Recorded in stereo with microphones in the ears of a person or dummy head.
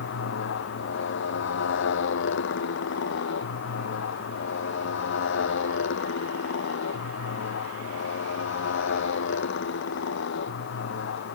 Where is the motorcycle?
70° left (ahead or behind); by 11.3 s 65° left (ahead or behind).